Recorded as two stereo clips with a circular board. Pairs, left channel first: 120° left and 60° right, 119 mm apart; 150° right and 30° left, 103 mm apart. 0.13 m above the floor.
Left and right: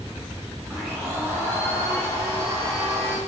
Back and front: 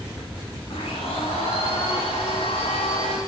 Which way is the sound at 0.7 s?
130° right.